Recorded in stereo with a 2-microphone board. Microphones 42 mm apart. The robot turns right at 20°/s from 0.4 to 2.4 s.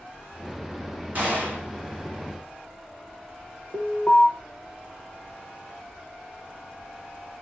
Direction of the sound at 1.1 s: 40° right (ahead or behind).